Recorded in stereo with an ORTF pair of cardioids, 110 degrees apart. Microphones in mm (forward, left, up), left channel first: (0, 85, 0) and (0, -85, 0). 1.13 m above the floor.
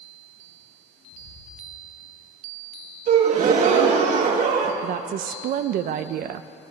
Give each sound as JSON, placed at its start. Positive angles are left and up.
{"t": 1.1, "sound": "footsteps", "azimuth_deg": 55, "distance_m": 5.0}
{"t": 3.1, "sound": "a gasp", "azimuth_deg": -55, "distance_m": 2.0}
{"t": 4.8, "sound": "a woman speaking", "azimuth_deg": -65, "distance_m": 0.6}